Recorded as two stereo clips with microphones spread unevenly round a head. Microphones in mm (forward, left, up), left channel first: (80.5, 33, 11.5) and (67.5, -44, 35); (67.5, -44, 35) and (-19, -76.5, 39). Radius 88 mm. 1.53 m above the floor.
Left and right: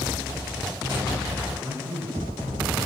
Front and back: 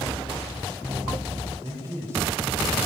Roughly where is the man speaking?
Right.